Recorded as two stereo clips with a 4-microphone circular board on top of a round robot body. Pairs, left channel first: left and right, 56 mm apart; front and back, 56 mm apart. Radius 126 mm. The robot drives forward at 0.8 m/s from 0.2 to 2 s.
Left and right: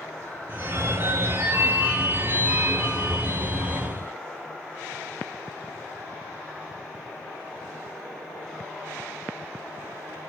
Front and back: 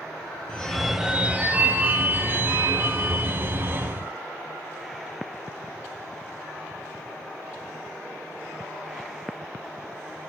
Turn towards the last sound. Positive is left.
turn(degrees=-145)